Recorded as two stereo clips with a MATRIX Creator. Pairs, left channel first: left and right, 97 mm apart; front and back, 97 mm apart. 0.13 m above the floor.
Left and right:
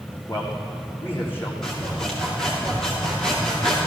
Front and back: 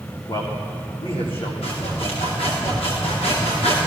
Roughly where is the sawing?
Ahead.